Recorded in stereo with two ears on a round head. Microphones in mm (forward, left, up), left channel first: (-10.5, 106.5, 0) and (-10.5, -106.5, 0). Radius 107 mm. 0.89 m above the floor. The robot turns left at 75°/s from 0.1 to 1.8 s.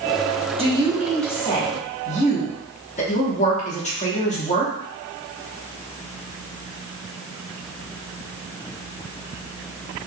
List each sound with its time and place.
0.6 s a woman speaking: 140° right, 1.1 m; by 4.7 s 130° left, 1.1 m